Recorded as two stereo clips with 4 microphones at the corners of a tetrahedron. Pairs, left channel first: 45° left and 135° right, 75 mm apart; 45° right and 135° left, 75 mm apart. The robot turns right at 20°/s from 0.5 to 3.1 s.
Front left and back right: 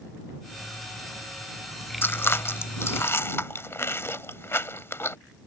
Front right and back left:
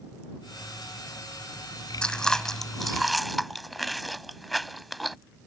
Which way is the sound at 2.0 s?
25° left.